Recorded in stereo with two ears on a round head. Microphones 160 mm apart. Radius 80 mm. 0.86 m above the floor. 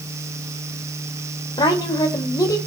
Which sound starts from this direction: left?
A woman speaking, at 1.6 s.